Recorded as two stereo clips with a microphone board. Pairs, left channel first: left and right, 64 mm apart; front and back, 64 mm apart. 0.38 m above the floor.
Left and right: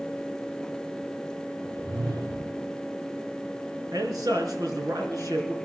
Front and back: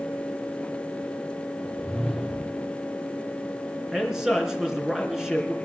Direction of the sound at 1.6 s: 85° right.